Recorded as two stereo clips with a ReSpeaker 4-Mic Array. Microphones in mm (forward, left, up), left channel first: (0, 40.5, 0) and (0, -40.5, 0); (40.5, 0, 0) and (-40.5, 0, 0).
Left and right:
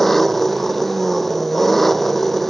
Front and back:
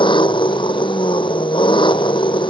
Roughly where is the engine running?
Ahead.